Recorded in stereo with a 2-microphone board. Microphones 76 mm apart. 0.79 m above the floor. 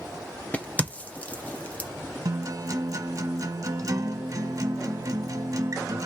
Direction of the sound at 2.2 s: 50° right (ahead or behind).